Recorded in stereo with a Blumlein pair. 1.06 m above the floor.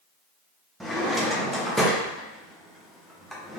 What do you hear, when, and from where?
0.8 s a drawer: straight ahead, 0.5 m